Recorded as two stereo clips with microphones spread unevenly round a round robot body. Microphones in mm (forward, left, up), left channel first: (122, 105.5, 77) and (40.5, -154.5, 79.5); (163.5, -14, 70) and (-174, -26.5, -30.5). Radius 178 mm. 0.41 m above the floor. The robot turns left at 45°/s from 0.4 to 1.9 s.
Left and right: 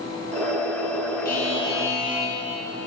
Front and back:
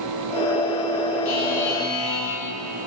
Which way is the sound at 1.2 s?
15° left.